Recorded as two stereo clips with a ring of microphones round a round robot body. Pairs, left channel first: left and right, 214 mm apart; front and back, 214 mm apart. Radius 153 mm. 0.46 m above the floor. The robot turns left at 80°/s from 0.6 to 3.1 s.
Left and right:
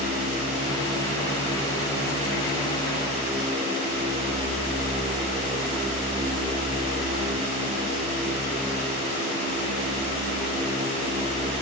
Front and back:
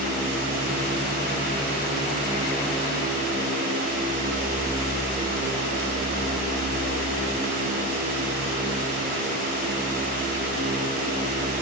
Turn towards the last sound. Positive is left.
No sound to turn to.